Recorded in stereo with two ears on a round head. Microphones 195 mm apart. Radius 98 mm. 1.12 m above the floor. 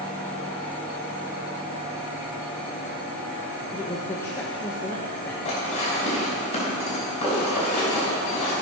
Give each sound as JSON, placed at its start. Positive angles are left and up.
{"t": 3.7, "sound": "a woman speaking", "side_deg": 10, "distance_m": 0.9}
{"t": 5.5, "sound": "dishes clattering", "side_deg": 30, "distance_m": 3.5}